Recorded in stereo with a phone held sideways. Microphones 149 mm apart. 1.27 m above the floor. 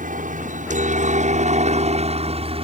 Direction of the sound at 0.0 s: 65° right (ahead or behind).